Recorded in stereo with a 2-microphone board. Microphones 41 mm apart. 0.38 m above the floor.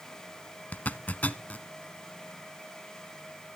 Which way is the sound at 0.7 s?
45° left (ahead or behind).